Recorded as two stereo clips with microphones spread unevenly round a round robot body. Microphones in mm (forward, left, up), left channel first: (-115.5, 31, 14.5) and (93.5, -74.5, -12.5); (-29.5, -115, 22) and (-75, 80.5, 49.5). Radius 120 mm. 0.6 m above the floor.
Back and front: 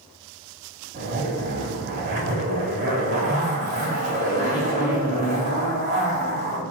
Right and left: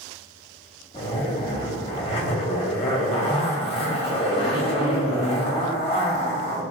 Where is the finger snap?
I don't hear a finger snap.